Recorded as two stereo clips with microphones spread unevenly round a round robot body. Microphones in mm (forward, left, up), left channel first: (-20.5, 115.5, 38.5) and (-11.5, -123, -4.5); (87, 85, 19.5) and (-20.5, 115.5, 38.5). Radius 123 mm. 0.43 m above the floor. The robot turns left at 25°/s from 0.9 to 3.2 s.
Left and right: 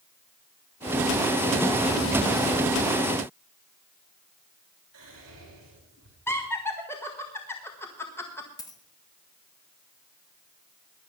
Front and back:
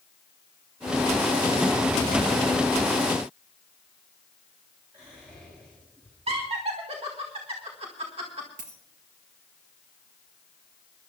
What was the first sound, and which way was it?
Whispering, 115° right.